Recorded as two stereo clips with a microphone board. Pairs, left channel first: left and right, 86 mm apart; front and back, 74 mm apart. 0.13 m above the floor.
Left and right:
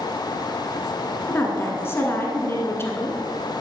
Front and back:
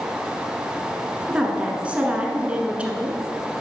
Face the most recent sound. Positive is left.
turn(degrees=120)